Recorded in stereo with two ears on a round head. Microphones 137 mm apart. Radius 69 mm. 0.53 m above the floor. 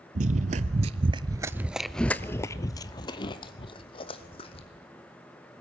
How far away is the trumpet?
I don't hear a trumpet.